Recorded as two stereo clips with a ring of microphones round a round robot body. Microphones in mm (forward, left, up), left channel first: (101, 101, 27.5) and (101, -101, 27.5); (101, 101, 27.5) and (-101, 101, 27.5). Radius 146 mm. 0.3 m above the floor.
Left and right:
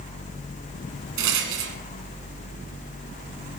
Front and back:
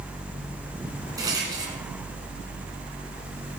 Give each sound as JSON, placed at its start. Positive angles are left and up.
{"t": 1.2, "sound": "a rattle", "azimuth_deg": -105, "distance_m": 1.9}